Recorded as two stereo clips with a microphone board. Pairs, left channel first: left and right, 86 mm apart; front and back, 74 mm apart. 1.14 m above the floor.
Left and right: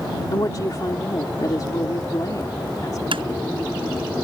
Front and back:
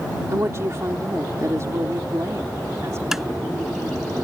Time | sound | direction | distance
0.3 | a woman speaking | 130° left | ?
3.1 | tapping | 95° right | ?